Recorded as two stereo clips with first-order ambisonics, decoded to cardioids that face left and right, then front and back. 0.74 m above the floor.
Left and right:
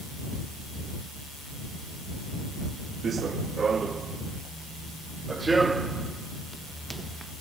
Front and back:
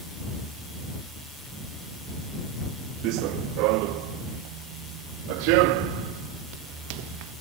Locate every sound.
3.0 s running footsteps: 155° right; by 7.3 s 175° right